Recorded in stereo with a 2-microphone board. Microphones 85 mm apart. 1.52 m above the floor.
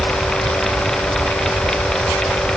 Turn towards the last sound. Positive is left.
No sound to turn to.